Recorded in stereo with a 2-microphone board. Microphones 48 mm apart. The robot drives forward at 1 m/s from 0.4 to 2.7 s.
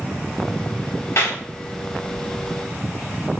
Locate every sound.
1.2 s a clap: 70° left (ahead or behind), 8 m